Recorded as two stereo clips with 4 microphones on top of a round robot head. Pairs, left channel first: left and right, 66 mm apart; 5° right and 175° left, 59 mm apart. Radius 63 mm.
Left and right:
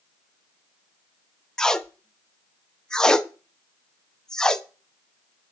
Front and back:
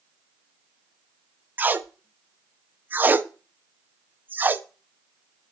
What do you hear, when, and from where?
1.6 s tape being pulled: 160° left, 0.8 m